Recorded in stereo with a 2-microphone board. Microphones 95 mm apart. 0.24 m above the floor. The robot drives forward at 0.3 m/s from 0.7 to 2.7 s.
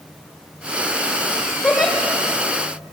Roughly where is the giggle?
Centre.